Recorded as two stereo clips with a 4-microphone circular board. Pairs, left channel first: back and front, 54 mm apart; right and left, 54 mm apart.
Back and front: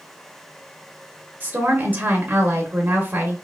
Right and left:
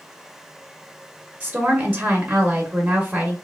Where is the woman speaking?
35° left, 0.9 m.